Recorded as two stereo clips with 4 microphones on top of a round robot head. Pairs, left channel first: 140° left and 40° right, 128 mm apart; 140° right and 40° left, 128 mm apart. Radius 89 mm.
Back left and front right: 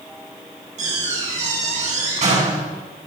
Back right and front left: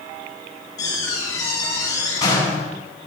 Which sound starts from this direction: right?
A door slam, at 0.8 s.